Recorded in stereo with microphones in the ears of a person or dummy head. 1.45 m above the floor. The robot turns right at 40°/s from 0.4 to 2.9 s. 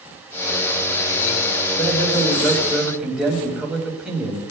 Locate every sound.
1.8 s a man speaking: 145° left, 5.5 m; by 4.4 s 170° right, 5.5 m